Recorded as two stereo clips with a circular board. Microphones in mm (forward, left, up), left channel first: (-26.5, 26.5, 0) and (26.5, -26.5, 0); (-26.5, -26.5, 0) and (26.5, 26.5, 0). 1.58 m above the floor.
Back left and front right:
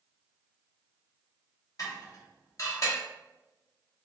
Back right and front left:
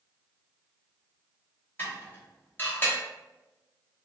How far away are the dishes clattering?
About 1.1 m.